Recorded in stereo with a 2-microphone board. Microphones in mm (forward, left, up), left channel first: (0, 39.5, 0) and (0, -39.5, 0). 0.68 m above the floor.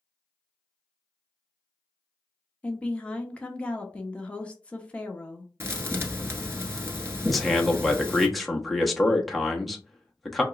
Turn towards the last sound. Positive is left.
turn(degrees=0)  # may be behind; listen again after turning